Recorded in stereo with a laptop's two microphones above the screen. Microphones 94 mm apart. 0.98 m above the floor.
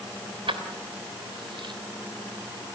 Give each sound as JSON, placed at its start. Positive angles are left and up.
{"t": 0.5, "sound": "keys jangling", "side_deg": -70, "distance_m": 3.0}